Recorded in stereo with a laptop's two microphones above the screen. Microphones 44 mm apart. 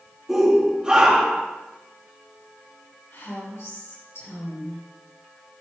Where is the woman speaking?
75° left (ahead or behind), 3.5 m.